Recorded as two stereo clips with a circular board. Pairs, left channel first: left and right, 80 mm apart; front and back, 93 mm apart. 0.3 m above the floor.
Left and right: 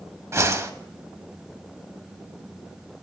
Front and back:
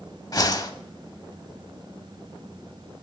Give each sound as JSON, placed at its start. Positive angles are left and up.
{"t": 0.3, "sound": "a whoosh", "azimuth_deg": -40, "distance_m": 0.6}